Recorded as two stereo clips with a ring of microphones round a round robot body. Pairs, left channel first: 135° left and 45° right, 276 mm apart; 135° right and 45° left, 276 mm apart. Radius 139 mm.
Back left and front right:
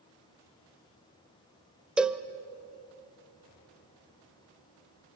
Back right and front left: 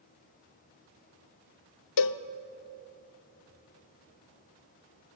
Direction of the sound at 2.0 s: 130° right.